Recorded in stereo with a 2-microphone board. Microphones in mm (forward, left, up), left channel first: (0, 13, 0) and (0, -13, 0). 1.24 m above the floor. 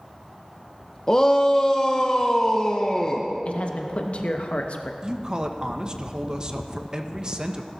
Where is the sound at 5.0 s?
30° right (ahead or behind), 1.0 m.